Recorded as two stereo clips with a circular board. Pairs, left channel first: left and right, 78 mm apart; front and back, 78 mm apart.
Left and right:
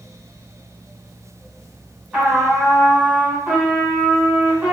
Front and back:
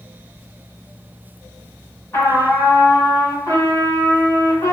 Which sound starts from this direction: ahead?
A trumpet, at 2.1 s.